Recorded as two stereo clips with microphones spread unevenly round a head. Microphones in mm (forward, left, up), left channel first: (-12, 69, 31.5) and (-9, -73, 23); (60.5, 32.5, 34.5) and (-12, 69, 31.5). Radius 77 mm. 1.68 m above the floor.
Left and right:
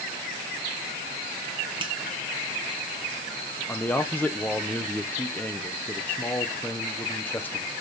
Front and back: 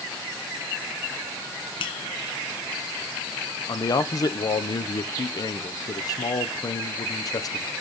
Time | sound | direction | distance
1.8 | a finger snap | 30° right | 1.1 m
3.7 | a man speaking | 15° left | 0.8 m